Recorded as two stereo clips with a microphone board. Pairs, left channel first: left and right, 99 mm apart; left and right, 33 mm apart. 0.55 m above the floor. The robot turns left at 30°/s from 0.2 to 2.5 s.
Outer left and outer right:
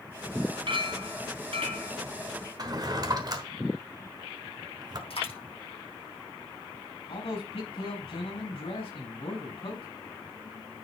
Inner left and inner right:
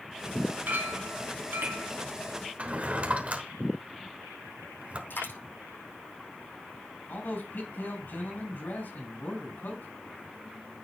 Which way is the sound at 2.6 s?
45° right (ahead or behind).